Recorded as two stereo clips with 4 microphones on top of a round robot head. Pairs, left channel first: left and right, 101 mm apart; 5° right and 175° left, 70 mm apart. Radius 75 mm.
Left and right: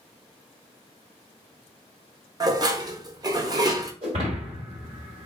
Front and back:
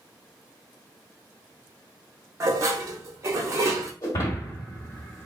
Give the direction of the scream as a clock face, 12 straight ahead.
No scream in this recording.